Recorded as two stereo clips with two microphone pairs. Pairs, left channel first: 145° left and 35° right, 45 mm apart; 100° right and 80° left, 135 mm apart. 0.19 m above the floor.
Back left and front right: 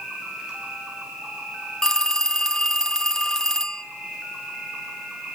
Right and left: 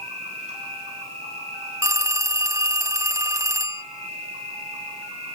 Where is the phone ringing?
90° left, 0.6 m.